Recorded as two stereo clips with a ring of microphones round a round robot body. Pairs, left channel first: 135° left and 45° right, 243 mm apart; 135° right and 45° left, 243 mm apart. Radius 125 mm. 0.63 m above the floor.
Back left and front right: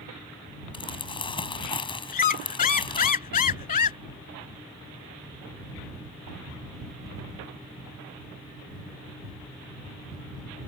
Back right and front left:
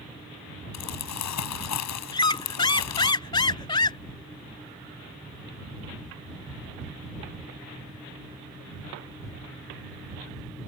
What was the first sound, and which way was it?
Crumpling, 155° right.